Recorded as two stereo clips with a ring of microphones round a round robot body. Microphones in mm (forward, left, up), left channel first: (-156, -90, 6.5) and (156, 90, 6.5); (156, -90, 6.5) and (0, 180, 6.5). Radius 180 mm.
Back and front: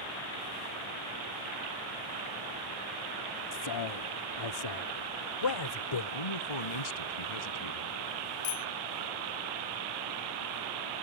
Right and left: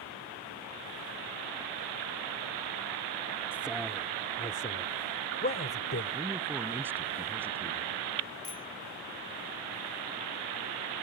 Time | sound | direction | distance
3.5 | a man speaking | 155° right | ?
6.1 | a man speaking | 155° right | ?
8.4 | a bicycle bell | 135° right | ?